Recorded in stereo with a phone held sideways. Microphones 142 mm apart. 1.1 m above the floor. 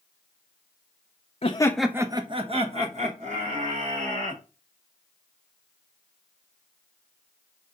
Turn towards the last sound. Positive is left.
turn(degrees=-60)  # may be behind; listen again after turning